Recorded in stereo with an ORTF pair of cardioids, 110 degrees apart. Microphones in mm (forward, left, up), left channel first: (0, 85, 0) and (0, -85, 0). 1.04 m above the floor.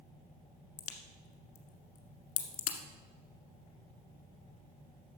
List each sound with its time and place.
0.8 s a crack: 55° left, 1.4 m